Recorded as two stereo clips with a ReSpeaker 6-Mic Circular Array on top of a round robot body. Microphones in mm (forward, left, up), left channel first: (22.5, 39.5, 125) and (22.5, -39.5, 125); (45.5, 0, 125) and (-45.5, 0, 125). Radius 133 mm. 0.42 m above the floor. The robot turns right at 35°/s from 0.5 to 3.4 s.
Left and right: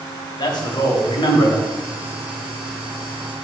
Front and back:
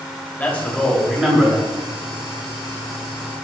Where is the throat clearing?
I don't hear throat clearing.